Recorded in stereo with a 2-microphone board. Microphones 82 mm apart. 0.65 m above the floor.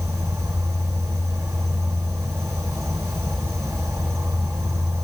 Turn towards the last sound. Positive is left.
turn(degrees=-35)  # may be behind; listen again after turning